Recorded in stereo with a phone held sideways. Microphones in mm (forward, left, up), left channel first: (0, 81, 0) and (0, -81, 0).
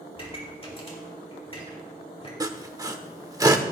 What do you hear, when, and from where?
0.1 s a pop: 40° left (ahead or behind), 3.5 m
2.4 s sawing: 20° right (ahead or behind), 1.0 m